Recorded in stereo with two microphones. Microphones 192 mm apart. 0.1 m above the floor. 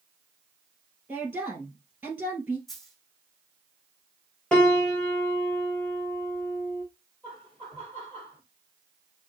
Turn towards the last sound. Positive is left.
turn(degrees=10)  # may be behind; listen again after turning